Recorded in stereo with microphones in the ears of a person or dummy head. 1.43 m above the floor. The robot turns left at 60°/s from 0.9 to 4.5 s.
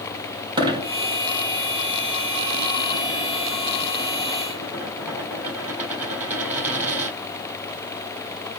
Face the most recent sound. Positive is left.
turn(degrees=-10)  # may be behind; listen again after turning